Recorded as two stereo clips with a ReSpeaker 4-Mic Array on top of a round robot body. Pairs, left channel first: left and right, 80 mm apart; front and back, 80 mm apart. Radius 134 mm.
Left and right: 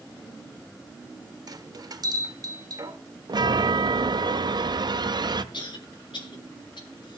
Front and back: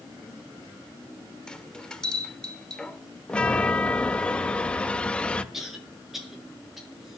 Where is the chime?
75° right, 1.1 m.